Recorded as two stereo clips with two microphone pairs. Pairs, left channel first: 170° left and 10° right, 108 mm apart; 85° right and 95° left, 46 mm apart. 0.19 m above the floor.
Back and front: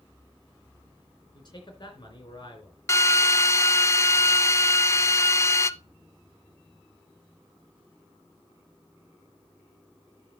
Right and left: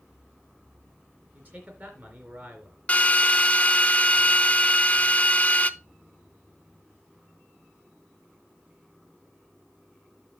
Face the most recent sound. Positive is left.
turn(degrees=-135)